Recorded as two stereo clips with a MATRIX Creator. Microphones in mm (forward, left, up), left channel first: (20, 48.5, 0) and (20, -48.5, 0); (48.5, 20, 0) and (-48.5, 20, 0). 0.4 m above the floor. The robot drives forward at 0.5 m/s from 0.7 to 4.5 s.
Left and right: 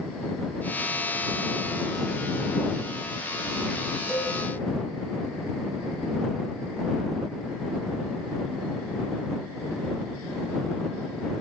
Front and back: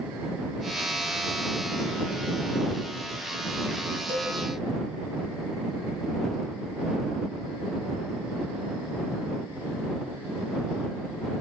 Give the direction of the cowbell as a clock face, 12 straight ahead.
6 o'clock.